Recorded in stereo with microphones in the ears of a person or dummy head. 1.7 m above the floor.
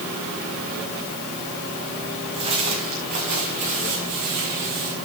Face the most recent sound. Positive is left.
turn(degrees=-55)  # may be behind; listen again after turning